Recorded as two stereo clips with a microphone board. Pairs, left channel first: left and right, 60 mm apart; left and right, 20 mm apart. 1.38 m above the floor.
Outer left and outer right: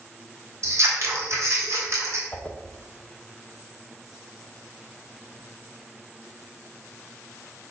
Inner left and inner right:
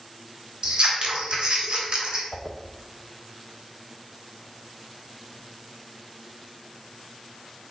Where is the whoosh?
25° left (ahead or behind), 0.8 m.